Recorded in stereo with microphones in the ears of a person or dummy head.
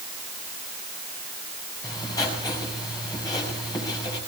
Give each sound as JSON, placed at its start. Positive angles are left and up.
{"t": 1.8, "sound": "writing", "side_deg": 20, "distance_m": 6.0}